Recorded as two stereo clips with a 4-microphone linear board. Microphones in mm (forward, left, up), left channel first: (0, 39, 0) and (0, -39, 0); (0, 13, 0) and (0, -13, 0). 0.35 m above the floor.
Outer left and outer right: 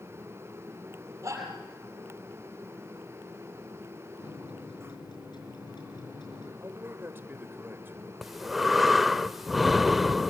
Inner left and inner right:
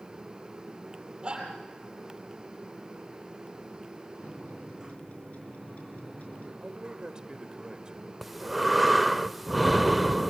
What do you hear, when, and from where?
1.2 s a shout: 35° right (ahead or behind), 7.5 m
4.2 s a microwave: 70° left (ahead or behind), 5 m
6.6 s a man speaking: 30° right (ahead or behind), 1.6 m
8.2 s breathing: centre (ahead or behind), 0.5 m